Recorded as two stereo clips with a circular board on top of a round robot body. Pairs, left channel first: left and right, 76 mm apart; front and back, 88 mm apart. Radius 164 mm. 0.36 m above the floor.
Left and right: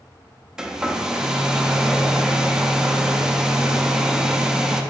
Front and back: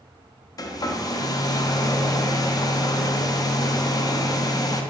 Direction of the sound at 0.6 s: 10° right.